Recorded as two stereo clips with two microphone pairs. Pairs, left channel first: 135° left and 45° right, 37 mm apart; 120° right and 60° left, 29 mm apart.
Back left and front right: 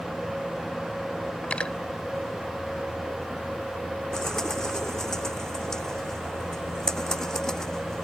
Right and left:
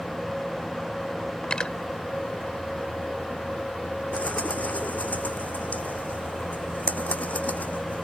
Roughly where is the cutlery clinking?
Behind.